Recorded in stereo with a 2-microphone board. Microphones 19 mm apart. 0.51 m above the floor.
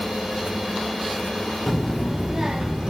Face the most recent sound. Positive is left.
turn(degrees=-50)  # may be behind; listen again after turning